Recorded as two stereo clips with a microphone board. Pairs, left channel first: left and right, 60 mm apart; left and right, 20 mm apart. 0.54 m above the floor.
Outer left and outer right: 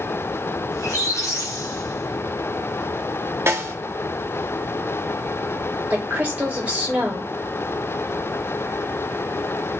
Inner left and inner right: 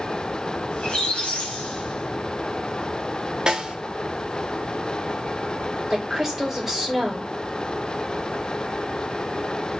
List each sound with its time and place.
0.7 s a squeak: 60° left (ahead or behind), 1.0 m
3.5 s a snare drum: 40° right (ahead or behind), 0.7 m
5.9 s a woman speaking: 25° right (ahead or behind), 1.6 m